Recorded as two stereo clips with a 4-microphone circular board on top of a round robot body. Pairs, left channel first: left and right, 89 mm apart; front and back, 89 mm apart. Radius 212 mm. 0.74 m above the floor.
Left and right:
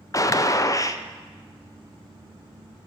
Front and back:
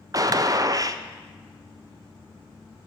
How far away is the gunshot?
About 0.7 m.